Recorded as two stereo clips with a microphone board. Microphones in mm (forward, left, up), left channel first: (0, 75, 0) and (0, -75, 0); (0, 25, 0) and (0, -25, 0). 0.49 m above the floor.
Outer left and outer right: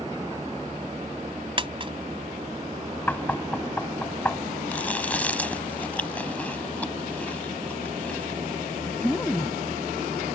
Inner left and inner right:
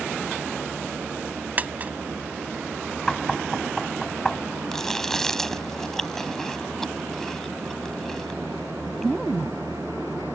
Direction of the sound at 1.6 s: 35° right (ahead or behind).